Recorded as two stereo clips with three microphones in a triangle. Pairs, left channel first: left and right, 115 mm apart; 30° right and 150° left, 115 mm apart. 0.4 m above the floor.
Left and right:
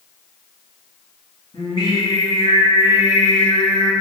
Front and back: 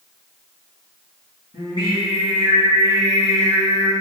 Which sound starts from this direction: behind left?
Singing, at 1.5 s.